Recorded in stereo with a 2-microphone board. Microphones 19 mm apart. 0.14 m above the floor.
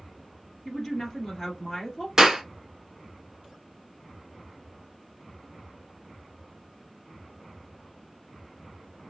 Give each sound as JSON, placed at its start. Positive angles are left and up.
{"t": 0.7, "sound": "a woman speaking", "side_deg": 10, "distance_m": 1.9}
{"t": 2.2, "sound": "a clap", "side_deg": -25, "distance_m": 1.4}